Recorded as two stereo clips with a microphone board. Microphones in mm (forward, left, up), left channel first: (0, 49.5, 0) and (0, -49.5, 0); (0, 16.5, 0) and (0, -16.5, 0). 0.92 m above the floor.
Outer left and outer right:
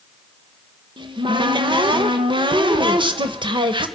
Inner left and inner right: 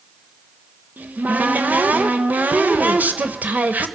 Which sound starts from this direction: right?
A cupboard door, at 1.0 s.